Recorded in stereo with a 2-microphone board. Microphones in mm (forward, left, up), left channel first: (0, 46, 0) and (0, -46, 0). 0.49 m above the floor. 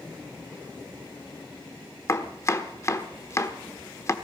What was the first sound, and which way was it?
Chopping, 35° left (ahead or behind).